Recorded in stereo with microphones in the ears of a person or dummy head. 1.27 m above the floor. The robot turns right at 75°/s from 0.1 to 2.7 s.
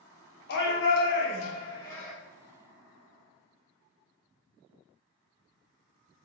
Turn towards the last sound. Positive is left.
turn(degrees=-135)